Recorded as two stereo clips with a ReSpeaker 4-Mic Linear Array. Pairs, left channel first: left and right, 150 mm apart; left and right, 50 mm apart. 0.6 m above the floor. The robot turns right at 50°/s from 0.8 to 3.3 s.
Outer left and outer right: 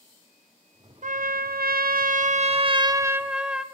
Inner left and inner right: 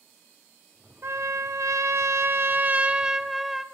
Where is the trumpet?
120° right, 0.6 m; by 3.6 s 5° right, 0.6 m.